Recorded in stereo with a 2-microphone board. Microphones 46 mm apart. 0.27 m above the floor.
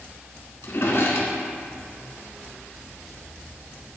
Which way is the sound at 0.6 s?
60° left (ahead or behind).